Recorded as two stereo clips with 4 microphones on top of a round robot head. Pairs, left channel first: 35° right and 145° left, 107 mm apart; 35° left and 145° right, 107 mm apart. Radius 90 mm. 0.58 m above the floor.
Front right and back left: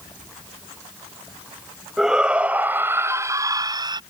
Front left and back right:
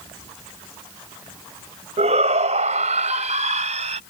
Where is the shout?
130° right; by 4.0 s 165° right.